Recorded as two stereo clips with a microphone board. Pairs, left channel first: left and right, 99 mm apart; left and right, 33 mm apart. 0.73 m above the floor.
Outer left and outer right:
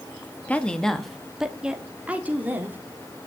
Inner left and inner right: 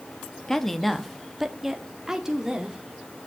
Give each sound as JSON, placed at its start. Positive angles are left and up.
{"t": 0.5, "sound": "a woman speaking", "side_deg": 15, "distance_m": 1.1}